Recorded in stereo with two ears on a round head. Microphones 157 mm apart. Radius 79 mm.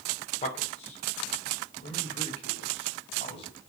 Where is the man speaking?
40° left (ahead or behind), 3 m; by 3.5 s 35° left (ahead or behind), 5.5 m.